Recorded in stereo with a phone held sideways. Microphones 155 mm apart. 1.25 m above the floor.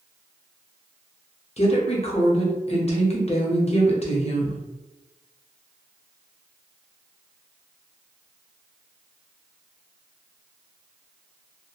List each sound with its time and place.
1.6 s a woman speaking: 40° left (ahead or behind), 0.7 m